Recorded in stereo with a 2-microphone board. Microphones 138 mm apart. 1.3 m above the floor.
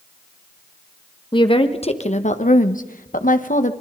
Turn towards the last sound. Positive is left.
turn(degrees=65)  # may be behind; listen again after turning